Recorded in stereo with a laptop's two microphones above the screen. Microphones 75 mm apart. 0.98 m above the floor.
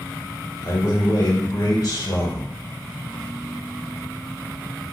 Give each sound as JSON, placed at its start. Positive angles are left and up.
{"t": 0.6, "sound": "a man speaking", "side_deg": 50, "distance_m": 1.3}